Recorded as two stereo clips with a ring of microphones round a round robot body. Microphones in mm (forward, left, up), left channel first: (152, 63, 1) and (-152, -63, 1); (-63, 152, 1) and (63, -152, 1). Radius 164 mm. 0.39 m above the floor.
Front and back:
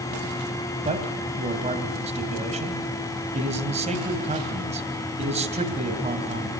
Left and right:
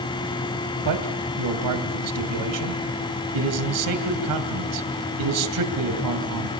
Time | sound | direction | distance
0.8 | a man speaking | 90° right | 2.5 m